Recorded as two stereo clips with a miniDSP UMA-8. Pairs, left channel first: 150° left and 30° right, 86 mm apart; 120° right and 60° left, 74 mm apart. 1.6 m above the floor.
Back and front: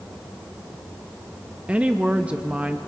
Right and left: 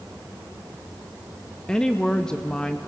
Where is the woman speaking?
70° right, 0.5 m.